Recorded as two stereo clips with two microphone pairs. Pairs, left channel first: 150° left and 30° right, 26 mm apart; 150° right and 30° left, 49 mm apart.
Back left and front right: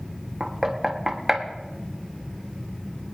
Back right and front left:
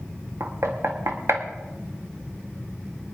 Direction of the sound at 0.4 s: 45° left.